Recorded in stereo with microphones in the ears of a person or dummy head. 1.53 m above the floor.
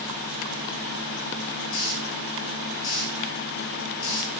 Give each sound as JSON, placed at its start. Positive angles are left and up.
{"t": 1.7, "sound": "a hiss", "side_deg": 75, "distance_m": 8.0}